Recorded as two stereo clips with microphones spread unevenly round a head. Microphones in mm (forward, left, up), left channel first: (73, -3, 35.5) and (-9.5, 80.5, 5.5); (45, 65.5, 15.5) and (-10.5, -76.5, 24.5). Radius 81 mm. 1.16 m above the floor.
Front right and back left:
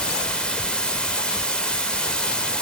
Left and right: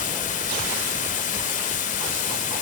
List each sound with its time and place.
0.0 s running water: 30° left, 1.7 m